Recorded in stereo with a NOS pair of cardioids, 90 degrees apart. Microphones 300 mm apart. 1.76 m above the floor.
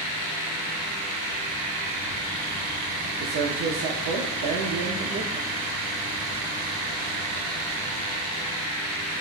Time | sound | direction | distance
3.2 | a man speaking | 65° right | 0.8 m